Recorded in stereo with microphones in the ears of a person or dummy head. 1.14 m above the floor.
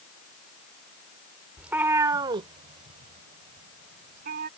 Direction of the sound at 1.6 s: 5° right (ahead or behind).